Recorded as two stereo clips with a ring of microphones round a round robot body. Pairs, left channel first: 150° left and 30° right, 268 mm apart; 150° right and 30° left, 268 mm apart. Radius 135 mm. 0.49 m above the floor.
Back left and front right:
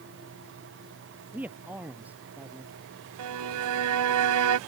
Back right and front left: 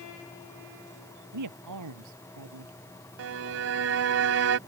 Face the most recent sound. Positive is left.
turn(degrees=-10)